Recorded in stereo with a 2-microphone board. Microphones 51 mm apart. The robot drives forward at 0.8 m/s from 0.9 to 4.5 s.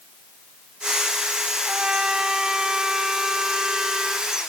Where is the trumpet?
15° right (ahead or behind); by 4.3 s 5° right (ahead or behind).